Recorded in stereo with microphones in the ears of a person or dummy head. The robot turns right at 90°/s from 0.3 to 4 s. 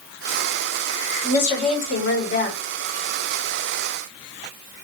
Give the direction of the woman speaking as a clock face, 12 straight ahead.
11 o'clock.